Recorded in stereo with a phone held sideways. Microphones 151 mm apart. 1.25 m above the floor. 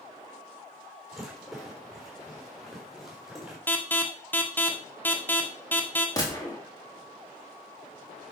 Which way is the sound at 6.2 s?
25° left (ahead or behind).